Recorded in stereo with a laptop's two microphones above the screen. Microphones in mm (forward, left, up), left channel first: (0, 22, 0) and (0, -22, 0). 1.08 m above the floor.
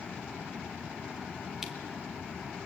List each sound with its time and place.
1.6 s crushing: 10° right (ahead or behind), 1.4 m